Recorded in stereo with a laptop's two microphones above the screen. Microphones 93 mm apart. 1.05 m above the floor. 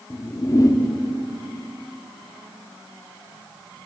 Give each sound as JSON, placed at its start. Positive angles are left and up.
{"t": 0.1, "sound": "a whoosh", "side_deg": 40, "distance_m": 0.6}